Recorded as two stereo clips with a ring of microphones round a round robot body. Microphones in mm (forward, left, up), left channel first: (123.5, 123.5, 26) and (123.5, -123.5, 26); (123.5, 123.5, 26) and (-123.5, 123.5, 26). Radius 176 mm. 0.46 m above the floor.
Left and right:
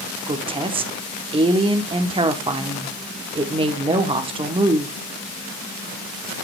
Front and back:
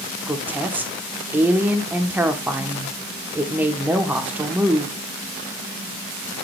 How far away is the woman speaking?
About 0.8 m.